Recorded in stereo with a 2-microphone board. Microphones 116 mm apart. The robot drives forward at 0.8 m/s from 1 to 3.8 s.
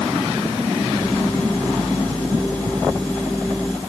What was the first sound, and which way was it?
Only background noise.